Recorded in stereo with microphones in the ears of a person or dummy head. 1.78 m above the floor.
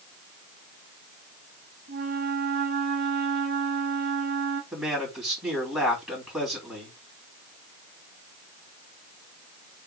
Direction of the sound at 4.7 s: 5° right (ahead or behind).